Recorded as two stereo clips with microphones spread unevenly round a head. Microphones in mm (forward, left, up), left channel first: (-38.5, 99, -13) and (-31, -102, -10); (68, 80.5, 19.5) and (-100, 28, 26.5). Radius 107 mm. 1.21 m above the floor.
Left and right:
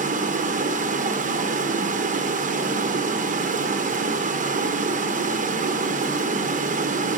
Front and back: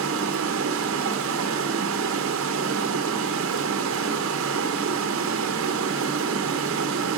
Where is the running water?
140° right, 0.8 m.